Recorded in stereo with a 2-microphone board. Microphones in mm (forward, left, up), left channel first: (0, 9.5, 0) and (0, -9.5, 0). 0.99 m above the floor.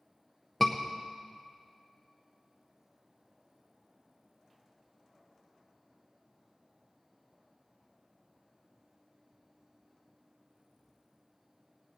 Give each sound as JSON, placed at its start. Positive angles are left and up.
{"t": 0.6, "sound": "a scream", "side_deg": 15, "distance_m": 0.7}